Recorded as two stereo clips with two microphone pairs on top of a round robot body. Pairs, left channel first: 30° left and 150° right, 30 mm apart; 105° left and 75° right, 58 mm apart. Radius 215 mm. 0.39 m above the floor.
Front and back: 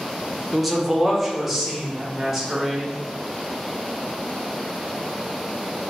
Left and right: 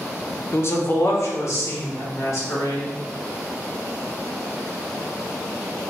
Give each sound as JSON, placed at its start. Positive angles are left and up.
{"t": 0.5, "sound": "a man speaking", "azimuth_deg": 125, "distance_m": 1.0}